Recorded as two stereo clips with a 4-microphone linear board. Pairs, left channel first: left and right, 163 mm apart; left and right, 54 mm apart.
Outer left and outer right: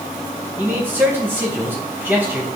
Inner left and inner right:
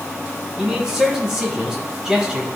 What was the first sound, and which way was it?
A man speaking, 15° right (ahead or behind).